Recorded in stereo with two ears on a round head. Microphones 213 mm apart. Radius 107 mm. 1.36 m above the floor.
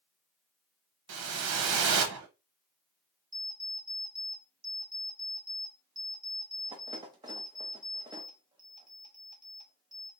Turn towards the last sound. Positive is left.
turn(degrees=-15)  # may be behind; listen again after turning